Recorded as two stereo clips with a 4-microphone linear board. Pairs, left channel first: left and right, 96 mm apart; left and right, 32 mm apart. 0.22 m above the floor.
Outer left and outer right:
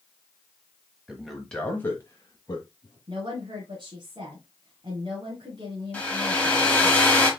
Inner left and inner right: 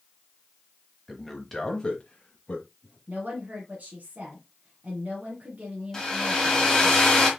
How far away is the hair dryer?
About 1.4 m.